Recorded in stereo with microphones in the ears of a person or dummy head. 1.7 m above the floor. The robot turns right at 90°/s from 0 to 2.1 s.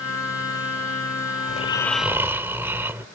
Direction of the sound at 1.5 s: 135° left.